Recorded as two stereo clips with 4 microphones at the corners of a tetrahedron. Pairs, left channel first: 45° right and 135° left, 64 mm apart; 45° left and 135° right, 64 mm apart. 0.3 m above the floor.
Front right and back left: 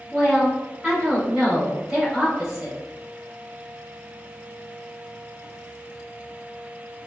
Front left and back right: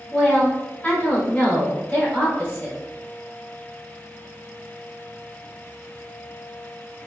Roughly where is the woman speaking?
Ahead left.